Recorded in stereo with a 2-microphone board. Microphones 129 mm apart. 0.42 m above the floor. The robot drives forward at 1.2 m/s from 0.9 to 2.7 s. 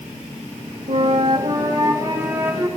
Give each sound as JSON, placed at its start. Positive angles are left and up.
{"t": 0.9, "sound": "a flute", "side_deg": -60, "distance_m": 0.8}